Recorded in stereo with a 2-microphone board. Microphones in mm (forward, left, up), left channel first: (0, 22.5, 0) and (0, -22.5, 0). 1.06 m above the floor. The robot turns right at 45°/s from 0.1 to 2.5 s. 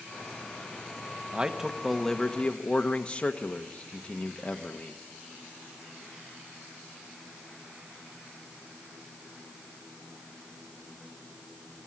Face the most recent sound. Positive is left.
turn(degrees=30)